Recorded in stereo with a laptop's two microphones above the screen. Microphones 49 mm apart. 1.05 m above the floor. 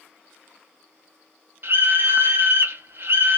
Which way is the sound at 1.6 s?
50° right (ahead or behind).